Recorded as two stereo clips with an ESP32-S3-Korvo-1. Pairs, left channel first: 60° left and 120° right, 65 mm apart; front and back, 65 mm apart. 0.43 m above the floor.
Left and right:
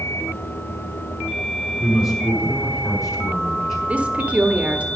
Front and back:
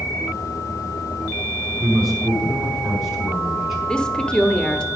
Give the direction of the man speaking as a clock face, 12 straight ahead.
9 o'clock.